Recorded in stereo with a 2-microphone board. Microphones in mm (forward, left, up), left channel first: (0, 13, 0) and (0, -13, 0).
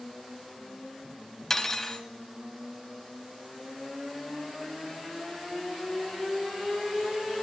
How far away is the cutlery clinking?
About 0.8 m.